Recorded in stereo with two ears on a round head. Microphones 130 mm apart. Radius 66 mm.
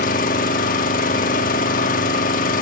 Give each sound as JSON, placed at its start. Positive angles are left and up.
{"t": 0.0, "sound": "an engine running", "side_deg": 65, "distance_m": 1.1}